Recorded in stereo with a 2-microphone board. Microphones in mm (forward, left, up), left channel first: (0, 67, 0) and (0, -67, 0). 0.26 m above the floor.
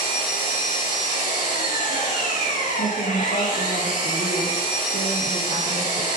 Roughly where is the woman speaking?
Left.